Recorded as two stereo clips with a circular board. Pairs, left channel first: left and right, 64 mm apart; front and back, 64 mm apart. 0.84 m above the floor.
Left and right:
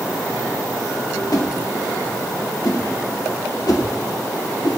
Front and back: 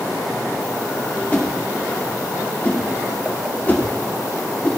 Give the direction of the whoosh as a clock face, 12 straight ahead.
10 o'clock.